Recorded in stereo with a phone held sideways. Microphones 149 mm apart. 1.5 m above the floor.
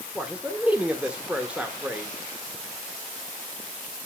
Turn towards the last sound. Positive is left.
turn(degrees=-10)  # may be behind; listen again after turning